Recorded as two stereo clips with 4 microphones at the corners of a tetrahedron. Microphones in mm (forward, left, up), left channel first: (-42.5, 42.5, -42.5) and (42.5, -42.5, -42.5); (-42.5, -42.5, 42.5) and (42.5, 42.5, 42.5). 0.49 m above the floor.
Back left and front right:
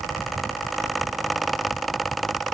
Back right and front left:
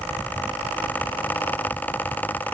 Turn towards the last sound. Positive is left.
No sound to turn to.